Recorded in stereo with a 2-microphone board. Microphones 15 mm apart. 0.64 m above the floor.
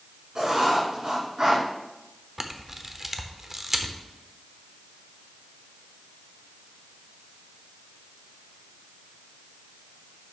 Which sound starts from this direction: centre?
A camera shutter, at 2.4 s.